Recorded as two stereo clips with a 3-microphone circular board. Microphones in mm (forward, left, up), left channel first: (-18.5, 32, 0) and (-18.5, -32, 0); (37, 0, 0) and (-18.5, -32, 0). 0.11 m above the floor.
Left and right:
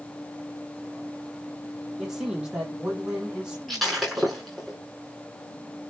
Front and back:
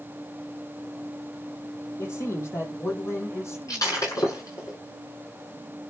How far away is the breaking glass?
About 8 m.